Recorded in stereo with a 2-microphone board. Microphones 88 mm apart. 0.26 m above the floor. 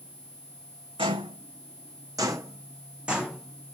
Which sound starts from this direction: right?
Footsteps, at 1.0 s.